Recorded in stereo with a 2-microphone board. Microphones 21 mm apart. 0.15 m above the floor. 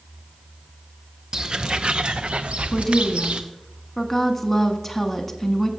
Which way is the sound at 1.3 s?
35° right (ahead or behind).